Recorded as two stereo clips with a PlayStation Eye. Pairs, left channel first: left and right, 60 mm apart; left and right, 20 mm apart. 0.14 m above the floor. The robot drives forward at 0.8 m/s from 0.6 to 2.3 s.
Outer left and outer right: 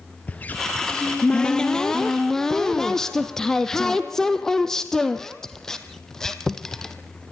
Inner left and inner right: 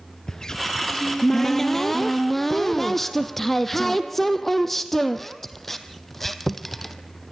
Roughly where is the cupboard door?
Left.